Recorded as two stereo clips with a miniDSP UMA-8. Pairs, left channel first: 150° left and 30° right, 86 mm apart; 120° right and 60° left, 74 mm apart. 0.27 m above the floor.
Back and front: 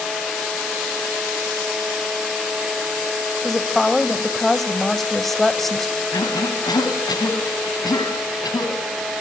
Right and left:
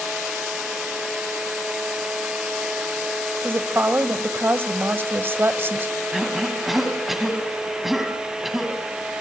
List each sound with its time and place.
3.4 s a woman speaking: 65° left, 1.2 m
6.1 s a cough: 150° left, 2.5 m